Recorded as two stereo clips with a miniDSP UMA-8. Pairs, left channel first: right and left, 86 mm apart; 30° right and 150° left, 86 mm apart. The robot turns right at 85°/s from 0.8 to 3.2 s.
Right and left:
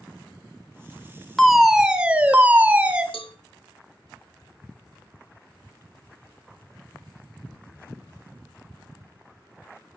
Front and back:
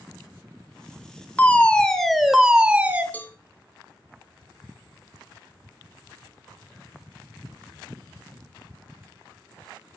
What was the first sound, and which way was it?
A fire alarm, 5° right.